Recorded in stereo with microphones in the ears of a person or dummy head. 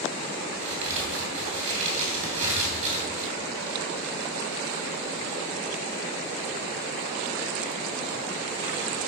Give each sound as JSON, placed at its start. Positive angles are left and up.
{"t": 0.5, "sound": "a crack", "side_deg": -40, "distance_m": 3.0}